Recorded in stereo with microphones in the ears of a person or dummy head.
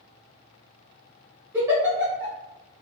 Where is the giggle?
10° right (ahead or behind), 1.2 m.